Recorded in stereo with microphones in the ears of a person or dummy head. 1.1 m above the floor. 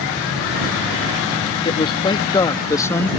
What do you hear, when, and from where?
1.6 s a man speaking: 25° left (ahead or behind); by 3.1 s 10° left (ahead or behind)